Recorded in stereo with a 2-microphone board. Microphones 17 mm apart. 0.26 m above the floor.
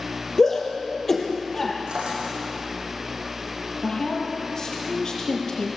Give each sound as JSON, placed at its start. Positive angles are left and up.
{"t": 0.4, "sound": "a shout", "side_deg": 25, "distance_m": 5.5}
{"t": 1.9, "sound": "a drawer", "side_deg": -70, "distance_m": 7.5}
{"t": 3.8, "sound": "a woman speaking", "side_deg": 35, "distance_m": 6.0}